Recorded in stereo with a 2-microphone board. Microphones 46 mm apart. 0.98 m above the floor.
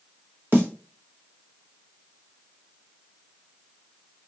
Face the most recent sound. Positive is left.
turn(degrees=-50)  # may be behind; listen again after turning